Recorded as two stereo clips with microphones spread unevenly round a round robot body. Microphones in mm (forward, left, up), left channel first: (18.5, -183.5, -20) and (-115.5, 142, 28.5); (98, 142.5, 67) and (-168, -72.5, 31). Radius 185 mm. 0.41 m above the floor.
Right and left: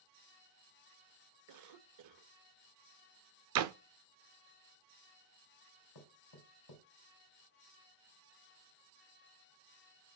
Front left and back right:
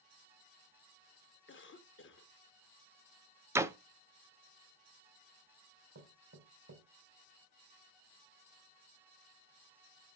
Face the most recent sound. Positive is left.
turn(degrees=-90)